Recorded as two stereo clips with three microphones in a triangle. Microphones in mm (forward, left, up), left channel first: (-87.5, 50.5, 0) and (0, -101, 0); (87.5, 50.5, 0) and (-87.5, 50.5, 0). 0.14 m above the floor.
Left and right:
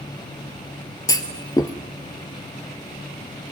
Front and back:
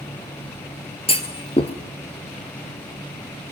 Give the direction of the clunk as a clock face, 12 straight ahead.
10 o'clock.